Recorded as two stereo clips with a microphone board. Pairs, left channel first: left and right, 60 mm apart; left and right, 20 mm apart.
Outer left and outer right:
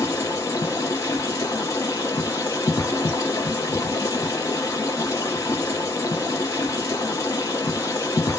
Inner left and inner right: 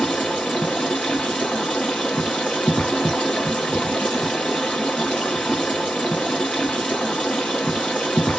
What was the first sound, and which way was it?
Running water, 80° left.